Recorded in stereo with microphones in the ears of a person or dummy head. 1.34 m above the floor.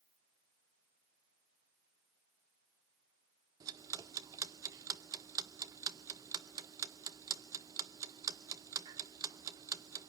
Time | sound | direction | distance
3.6 | ticking | 20° right (ahead or behind) | 0.7 m